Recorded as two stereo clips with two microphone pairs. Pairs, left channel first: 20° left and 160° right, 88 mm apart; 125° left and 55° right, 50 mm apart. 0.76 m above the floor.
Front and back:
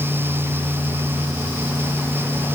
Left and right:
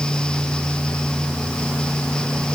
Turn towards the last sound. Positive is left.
No sound to turn to.